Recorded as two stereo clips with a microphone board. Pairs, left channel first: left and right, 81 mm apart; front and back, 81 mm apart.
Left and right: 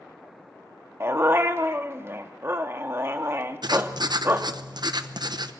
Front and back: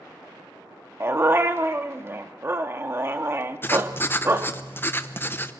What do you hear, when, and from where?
1.0 s a dog barking: 135° right, 1.1 m
3.6 s writing: 65° right, 0.8 m